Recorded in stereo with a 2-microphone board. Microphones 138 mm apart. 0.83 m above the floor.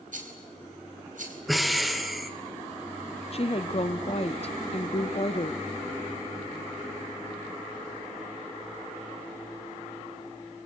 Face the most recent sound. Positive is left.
turn(degrees=45)  # may be behind; listen again after turning